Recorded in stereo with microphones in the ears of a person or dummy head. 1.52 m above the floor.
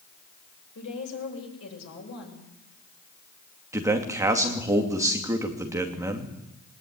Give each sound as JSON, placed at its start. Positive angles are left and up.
{"t": 0.8, "sound": "a woman speaking", "side_deg": 75, "distance_m": 8.0}
{"t": 3.7, "sound": "a man speaking", "side_deg": -20, "distance_m": 2.5}